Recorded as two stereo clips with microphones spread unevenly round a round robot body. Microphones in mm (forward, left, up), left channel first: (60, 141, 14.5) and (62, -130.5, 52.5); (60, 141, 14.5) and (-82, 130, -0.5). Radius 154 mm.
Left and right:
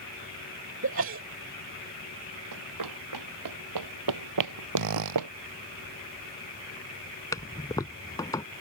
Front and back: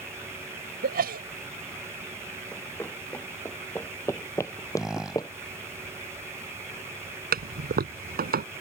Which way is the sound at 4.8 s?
85° right.